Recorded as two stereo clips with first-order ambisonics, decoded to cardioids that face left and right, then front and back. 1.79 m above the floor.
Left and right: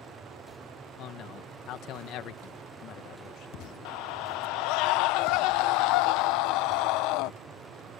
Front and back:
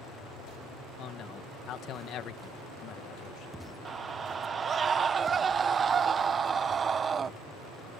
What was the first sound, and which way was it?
A man speaking, 50° left.